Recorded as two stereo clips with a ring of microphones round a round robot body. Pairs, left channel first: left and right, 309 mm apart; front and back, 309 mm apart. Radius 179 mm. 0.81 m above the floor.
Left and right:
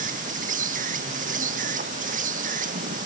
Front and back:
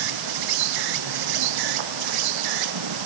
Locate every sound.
0.0 s an insect: 160° right